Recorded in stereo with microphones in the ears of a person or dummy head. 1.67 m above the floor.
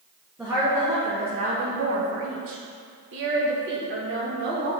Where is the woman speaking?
5° right (ahead or behind), 1.2 m; by 4.7 s 50° right (ahead or behind), 2.5 m.